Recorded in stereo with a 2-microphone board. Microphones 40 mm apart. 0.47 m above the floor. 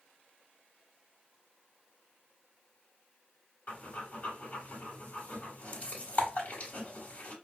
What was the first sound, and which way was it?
Breathing, 45° left (ahead or behind).